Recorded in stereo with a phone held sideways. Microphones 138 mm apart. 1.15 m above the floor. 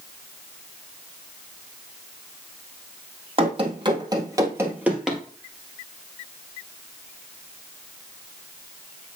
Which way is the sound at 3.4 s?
40° right (ahead or behind).